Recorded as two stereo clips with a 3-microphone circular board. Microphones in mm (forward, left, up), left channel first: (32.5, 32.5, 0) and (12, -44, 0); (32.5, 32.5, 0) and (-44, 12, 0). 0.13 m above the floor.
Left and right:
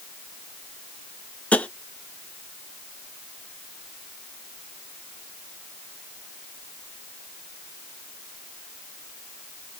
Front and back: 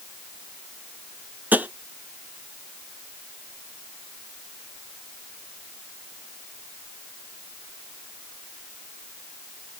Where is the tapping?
140° left, 0.5 m.